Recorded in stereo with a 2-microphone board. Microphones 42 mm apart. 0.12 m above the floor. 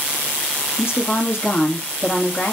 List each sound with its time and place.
0.8 s a woman speaking: 65° left (ahead or behind), 3 m